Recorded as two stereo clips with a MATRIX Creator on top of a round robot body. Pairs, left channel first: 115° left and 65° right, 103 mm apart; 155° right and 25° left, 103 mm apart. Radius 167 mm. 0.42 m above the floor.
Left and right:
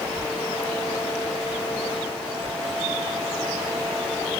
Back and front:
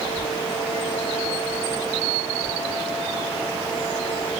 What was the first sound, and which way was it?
Only background noise.